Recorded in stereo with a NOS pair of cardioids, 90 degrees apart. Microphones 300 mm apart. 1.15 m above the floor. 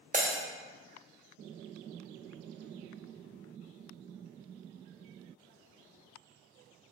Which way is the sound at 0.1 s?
25° right.